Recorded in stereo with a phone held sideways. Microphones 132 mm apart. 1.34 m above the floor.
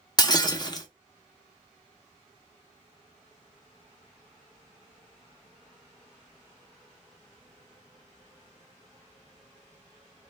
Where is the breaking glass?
30° left (ahead or behind), 0.6 m.